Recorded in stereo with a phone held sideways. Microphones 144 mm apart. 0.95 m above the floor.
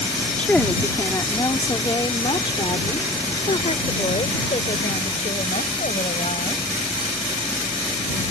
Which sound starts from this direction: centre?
A woman speaking, at 0.4 s.